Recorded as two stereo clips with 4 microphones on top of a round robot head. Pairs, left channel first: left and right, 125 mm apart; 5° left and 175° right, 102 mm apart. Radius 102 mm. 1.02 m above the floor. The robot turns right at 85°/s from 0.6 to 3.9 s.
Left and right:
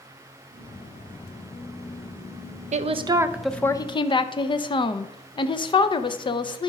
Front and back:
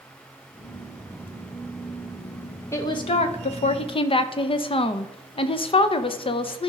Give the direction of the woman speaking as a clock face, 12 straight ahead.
2 o'clock.